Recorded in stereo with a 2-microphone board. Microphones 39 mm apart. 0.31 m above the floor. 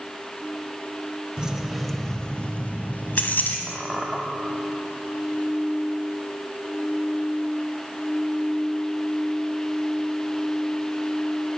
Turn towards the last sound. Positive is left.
turn(degrees=5)  # may be behind; listen again after turning